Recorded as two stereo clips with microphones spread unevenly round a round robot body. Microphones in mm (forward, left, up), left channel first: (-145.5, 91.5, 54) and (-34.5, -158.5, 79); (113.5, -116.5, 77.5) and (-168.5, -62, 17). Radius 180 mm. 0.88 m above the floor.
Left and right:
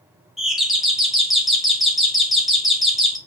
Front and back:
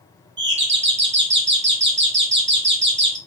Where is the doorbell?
160° right, 1.8 m.